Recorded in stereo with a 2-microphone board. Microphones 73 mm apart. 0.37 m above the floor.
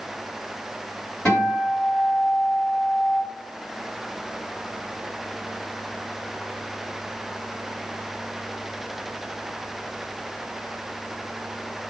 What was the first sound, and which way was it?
A guitar, 10° left (ahead or behind).